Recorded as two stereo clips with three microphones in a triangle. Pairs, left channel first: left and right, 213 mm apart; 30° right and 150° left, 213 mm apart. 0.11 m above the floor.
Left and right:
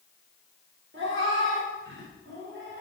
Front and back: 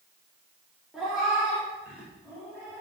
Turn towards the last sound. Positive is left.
turn(degrees=-125)